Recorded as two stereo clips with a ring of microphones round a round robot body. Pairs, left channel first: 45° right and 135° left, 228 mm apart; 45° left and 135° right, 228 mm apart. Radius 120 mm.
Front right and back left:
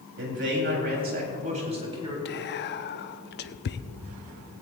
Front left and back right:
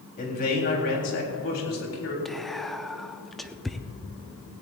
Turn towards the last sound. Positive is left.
turn(degrees=-45)